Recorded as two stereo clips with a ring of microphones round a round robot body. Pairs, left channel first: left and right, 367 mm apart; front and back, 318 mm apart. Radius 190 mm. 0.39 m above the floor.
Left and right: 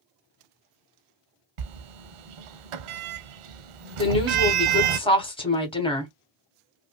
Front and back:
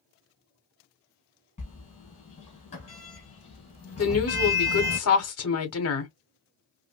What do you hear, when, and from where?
1.6 s a sliding door: 75° right, 0.7 m
4.0 s a woman speaking: 20° left, 1.3 m